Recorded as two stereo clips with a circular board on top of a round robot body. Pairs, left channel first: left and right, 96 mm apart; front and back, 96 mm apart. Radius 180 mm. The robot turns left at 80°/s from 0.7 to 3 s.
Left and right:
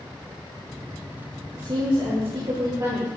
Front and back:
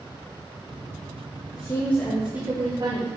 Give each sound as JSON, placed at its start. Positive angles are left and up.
{"t": 1.5, "sound": "a woman speaking", "azimuth_deg": -40, "distance_m": 1.6}